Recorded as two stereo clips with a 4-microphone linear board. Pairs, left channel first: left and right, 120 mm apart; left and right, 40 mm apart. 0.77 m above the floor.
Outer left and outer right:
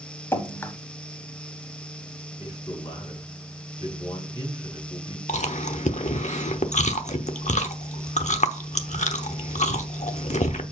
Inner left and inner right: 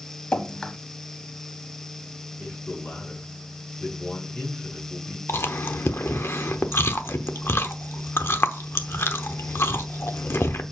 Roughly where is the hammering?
I don't hear hammering.